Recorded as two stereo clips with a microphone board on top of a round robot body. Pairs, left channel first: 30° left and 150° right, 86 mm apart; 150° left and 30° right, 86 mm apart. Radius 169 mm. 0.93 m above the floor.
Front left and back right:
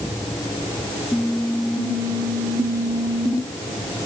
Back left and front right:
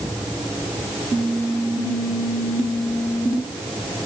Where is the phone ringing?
I don't hear a phone ringing.